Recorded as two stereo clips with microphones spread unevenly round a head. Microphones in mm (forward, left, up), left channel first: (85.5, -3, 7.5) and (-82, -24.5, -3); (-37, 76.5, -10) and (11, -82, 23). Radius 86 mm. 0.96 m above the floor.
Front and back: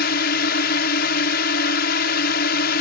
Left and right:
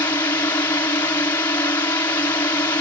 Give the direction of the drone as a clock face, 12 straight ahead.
11 o'clock.